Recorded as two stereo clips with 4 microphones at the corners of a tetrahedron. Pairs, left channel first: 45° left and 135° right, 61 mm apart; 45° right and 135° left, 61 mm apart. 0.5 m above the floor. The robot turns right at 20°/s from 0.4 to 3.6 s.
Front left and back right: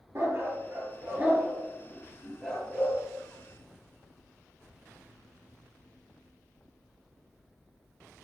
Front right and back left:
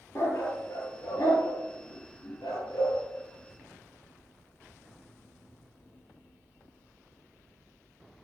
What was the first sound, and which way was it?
A dog barking, 90° right.